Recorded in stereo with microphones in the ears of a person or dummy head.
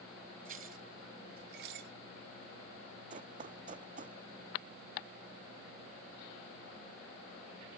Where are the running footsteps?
45° right (ahead or behind); by 4.2 s 50° right (ahead or behind).